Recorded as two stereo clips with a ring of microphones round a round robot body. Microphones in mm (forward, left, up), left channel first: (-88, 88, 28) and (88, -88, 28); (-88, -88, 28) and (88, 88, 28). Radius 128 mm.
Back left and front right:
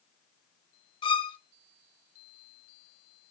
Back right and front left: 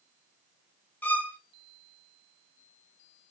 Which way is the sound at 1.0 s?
155° left.